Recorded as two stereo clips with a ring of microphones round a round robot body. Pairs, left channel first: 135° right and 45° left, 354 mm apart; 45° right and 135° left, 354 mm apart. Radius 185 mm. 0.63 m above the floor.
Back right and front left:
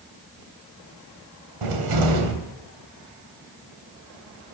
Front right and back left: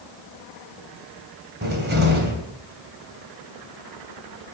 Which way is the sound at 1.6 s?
70° left.